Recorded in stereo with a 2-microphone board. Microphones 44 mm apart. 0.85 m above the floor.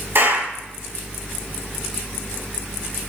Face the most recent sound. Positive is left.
turn(degrees=-60)  # may be behind; listen again after turning